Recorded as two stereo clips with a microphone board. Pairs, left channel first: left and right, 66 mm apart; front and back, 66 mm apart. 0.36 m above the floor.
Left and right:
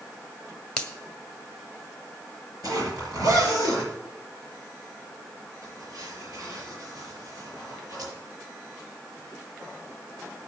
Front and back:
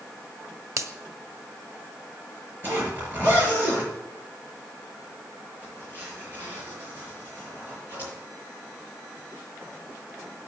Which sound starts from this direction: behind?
A finger snap, at 0.8 s.